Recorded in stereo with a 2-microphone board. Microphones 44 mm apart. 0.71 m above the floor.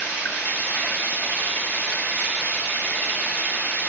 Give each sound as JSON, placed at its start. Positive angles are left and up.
{"t": 0.0, "sound": "running water", "side_deg": 55, "distance_m": 3.0}